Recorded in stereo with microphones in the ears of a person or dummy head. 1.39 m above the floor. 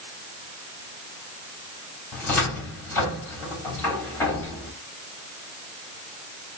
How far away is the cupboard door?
About 3.5 m.